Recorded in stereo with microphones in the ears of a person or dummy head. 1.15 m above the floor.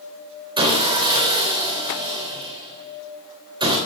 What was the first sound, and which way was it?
Sawing, 30° right (ahead or behind).